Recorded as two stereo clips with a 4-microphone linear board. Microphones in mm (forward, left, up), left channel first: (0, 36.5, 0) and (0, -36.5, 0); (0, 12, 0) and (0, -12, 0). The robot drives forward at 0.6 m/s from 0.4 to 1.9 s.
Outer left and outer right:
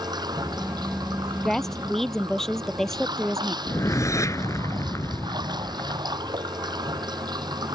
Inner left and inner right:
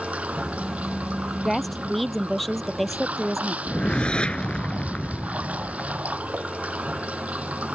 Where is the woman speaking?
5° left (ahead or behind).